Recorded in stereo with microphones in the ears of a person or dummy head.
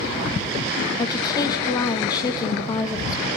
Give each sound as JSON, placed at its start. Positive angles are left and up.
{"t": 1.0, "sound": "a woman speaking", "side_deg": 25, "distance_m": 2.0}